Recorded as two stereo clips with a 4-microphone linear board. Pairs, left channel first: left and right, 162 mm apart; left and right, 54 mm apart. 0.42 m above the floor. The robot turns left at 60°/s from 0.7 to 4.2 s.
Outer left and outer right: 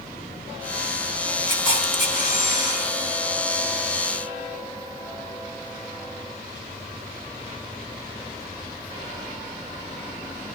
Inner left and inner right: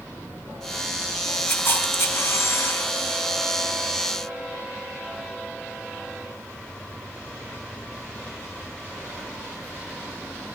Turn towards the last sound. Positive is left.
turn(degrees=-15)